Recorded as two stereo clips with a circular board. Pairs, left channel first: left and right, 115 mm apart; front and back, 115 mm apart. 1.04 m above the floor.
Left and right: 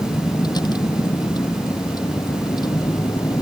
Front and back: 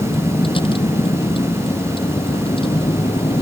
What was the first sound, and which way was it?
A vehicle, 40° left.